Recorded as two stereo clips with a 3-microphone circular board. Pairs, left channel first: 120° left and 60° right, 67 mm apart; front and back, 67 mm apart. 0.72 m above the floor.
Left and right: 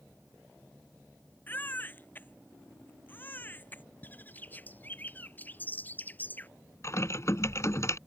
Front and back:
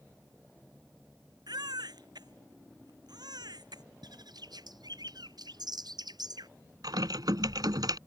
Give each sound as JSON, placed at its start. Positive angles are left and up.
{"t": 1.5, "sound": "a baby crying", "azimuth_deg": -175}
{"t": 4.0, "sound": "a bird", "azimuth_deg": -175}
{"t": 6.8, "sound": "typing on a keyboard", "azimuth_deg": 165}